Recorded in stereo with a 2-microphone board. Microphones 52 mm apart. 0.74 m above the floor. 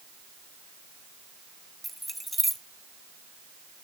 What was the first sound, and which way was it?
Keys jangling, centre (ahead or behind).